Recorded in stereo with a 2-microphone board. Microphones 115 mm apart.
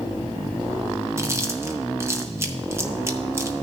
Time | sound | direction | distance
1.2 | chewing | 25° right (ahead or behind) | 0.8 m